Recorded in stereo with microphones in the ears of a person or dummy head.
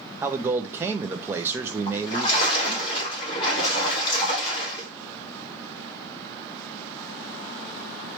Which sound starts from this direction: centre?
A man speaking, at 0.2 s.